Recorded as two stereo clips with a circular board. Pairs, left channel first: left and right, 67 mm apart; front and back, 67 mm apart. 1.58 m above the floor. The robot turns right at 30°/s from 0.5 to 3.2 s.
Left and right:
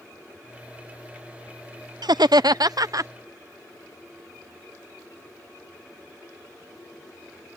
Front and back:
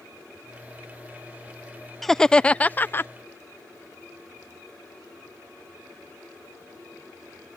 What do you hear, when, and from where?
2.0 s laughter: 90° right; by 3.1 s 55° right